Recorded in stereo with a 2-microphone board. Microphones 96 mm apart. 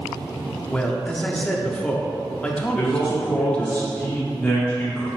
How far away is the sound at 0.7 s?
About 0.7 m.